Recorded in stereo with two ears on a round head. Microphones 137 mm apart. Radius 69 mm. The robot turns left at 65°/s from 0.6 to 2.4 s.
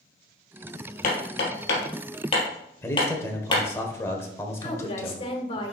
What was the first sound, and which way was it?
Hammering, 60° left (ahead or behind).